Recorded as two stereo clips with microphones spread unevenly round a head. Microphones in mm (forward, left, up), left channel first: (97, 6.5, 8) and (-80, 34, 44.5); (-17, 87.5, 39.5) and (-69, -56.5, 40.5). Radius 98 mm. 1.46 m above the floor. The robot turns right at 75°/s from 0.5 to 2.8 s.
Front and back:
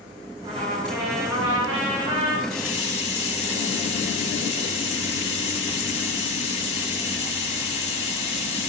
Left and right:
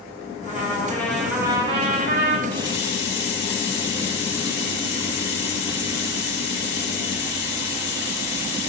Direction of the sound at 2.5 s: 15° right.